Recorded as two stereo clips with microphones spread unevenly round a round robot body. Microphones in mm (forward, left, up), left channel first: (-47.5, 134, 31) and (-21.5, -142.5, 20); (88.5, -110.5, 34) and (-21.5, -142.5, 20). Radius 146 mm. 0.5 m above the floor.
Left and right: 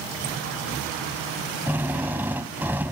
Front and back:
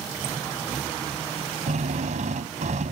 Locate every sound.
1.7 s a drill: 170° right